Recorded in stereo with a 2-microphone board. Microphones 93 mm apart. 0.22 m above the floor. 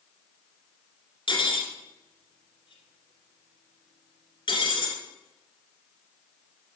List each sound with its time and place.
1.3 s cutlery clinking: 65° left (ahead or behind), 2 m